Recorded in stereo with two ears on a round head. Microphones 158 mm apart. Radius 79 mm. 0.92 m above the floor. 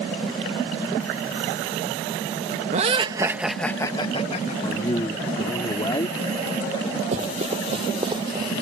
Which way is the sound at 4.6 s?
25° left (ahead or behind).